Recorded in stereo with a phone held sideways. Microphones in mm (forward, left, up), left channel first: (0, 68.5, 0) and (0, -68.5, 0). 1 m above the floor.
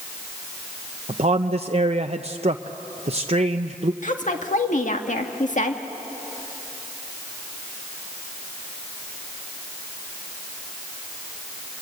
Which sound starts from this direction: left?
A woman speaking, at 4.0 s.